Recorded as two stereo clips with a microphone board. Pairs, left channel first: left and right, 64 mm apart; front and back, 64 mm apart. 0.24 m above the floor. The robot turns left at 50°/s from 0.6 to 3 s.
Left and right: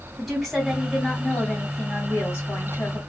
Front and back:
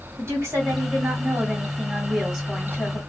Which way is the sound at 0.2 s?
175° right.